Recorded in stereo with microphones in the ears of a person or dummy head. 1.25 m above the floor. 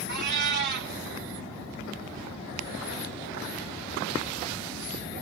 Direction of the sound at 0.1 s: 50° right (ahead or behind).